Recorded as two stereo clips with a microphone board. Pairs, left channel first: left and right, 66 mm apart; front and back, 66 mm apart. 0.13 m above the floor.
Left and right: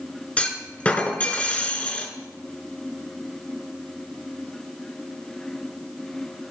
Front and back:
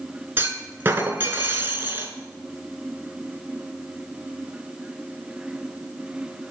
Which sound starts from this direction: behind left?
A clunk, at 0.4 s.